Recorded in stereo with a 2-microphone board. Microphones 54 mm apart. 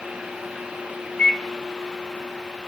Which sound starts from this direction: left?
A microwave, at 1.2 s.